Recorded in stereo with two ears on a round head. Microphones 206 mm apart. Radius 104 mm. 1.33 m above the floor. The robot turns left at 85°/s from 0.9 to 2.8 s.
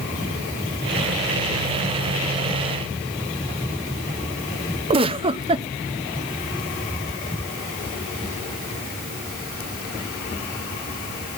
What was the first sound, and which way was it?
A giggle, 25° right (ahead or behind).